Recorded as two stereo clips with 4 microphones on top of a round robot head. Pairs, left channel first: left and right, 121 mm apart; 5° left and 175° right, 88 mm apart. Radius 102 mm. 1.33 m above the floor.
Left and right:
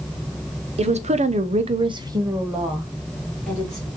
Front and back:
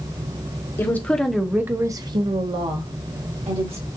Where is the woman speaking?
60° right, 0.8 m; by 3.9 s 170° left, 1.4 m.